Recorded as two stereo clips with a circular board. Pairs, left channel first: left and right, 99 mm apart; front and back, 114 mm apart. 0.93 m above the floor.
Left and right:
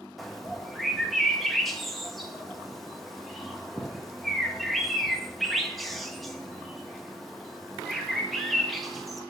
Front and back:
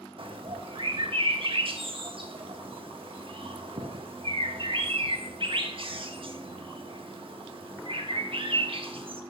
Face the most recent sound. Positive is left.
turn(degrees=180)